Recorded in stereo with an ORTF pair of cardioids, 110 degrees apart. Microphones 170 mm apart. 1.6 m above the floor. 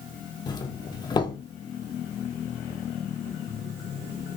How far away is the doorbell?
About 0.5 m.